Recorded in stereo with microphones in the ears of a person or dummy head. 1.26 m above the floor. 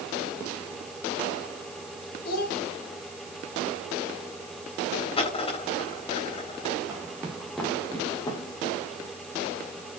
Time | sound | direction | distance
2.2 | a child speaking | 60° left (ahead or behind) | 4 m
5.2 | a dropped coin | 30° left (ahead or behind) | 3.5 m
6.9 | footsteps | 15° right (ahead or behind) | 3 m